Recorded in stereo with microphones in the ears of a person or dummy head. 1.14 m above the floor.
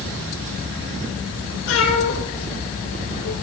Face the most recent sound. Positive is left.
turn(degrees=85)